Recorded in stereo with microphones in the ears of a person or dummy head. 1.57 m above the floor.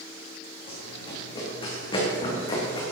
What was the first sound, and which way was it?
Running footsteps, 35° left (ahead or behind).